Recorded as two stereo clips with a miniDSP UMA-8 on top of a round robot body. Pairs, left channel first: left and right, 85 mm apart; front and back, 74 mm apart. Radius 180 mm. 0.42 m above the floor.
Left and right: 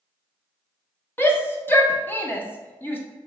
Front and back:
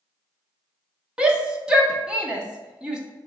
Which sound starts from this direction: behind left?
A shout, at 1.2 s.